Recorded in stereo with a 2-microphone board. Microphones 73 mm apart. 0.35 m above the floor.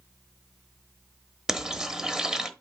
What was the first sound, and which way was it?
Frying, 10° right (ahead or behind).